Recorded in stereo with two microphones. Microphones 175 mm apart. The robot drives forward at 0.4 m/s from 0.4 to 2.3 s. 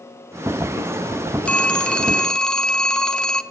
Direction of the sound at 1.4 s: 5° left (ahead or behind).